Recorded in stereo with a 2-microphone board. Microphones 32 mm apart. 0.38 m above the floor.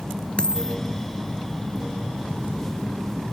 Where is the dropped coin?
25° left (ahead or behind).